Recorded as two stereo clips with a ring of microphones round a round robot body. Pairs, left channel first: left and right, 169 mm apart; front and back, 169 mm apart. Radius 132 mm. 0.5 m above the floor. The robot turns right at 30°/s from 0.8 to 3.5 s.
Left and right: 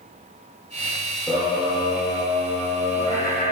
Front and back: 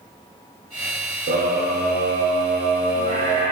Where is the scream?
Straight behind, 1.9 m; by 3.5 s 110° right, 1.9 m.